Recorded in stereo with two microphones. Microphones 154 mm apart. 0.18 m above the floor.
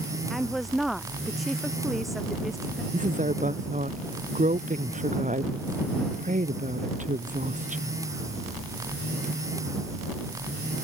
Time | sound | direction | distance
0.3 | a woman speaking | centre (ahead or behind) | ?
2.9 | a woman speaking | 55° right (ahead or behind) | ?